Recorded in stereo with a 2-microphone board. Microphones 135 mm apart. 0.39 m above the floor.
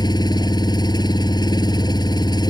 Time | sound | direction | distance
0.0 | an engine running | 30° left (ahead or behind) | ?